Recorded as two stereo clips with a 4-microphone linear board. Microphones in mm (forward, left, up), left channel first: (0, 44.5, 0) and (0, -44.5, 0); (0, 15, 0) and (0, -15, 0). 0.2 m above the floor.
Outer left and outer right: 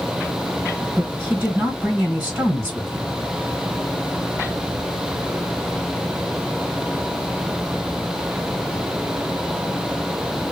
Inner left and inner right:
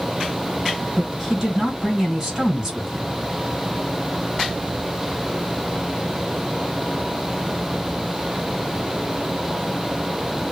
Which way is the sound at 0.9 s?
20° right (ahead or behind).